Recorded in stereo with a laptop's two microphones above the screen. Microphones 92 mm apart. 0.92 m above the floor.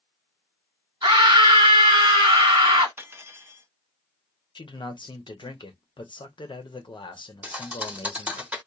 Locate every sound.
1.0 s a scream: 55° right (ahead or behind), 1.3 m
3.0 s cutlery clinking: 25° right (ahead or behind), 0.7 m
4.5 s a man speaking: 60° left (ahead or behind), 0.9 m
7.4 s a thud: 15° right (ahead or behind), 0.7 m